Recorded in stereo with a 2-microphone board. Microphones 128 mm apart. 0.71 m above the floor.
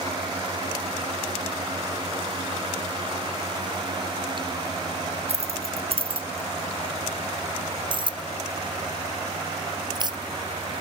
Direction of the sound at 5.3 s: 55° right (ahead or behind).